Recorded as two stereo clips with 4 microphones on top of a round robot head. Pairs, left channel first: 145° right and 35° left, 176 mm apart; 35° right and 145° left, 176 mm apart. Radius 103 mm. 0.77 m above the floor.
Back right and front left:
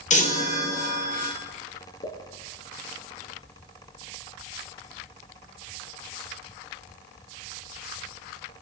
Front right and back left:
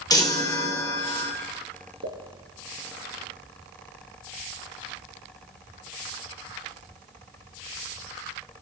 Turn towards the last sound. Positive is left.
turn(degrees=160)